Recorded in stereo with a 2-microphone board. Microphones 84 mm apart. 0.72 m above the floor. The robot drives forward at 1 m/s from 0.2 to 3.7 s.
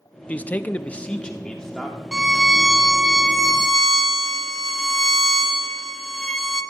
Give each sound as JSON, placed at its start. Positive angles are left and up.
{"t": 0.3, "sound": "a man speaking", "side_deg": 15, "distance_m": 0.6}
{"t": 2.1, "sound": "a violin", "side_deg": -5, "distance_m": 0.6}